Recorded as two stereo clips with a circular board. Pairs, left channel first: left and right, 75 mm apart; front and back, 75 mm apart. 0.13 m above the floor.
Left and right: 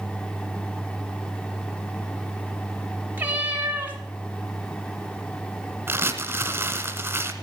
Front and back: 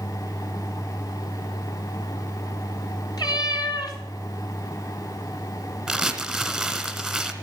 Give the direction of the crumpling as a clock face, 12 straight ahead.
3 o'clock.